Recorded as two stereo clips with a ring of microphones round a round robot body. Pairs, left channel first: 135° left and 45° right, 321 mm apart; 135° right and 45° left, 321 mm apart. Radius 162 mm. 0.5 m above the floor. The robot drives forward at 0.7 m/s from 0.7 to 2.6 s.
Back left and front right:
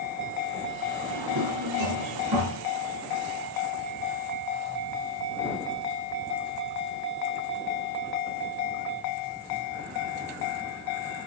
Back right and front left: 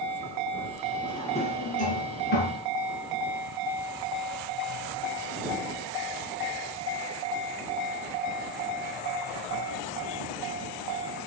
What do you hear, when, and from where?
1.0 s a drawer: 60° right, 3.5 m; by 2.6 s 80° right, 3 m